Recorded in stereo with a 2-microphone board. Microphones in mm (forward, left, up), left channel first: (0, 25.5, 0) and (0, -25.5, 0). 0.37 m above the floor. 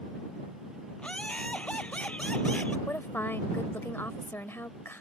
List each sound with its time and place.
1.0 s laughter: 25° left (ahead or behind)
2.9 s a woman speaking: 50° left (ahead or behind)